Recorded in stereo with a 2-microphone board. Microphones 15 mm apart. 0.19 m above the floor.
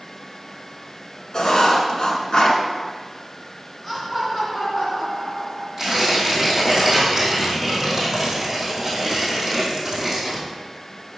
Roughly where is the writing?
Left.